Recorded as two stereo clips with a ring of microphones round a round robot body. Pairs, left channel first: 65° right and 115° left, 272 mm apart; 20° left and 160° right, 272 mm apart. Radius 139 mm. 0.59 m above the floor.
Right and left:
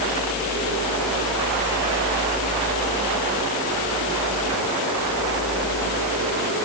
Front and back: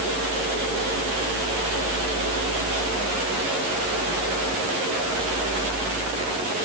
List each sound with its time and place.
Only background noise.